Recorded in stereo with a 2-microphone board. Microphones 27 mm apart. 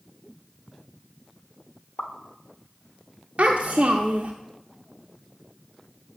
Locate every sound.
2.0 s a pop: 75° left (ahead or behind), 0.8 m
3.4 s a child speaking: 50° right (ahead or behind), 0.5 m